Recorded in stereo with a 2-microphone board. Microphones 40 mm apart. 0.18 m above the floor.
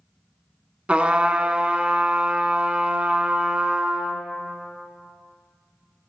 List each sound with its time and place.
0.9 s a trumpet: 30° right (ahead or behind), 0.6 m